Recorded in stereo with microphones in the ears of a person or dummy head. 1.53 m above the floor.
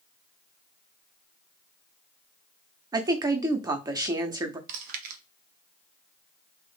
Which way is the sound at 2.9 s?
30° right (ahead or behind).